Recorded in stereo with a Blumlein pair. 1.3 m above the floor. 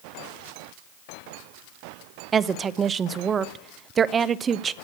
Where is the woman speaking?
20° right, 0.5 m.